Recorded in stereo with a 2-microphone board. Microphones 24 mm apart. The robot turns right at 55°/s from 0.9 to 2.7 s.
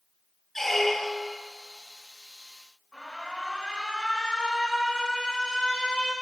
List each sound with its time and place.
0.6 s a squeak: 10° left (ahead or behind), 0.7 m; by 1.4 s 10° right (ahead or behind), 0.7 m
2.9 s an alarm: 30° left (ahead or behind), 5 m